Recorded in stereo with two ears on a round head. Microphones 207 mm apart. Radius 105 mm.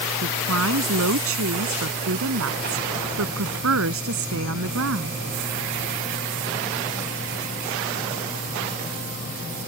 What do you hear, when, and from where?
0.2 s a woman speaking: 75° right (ahead or behind)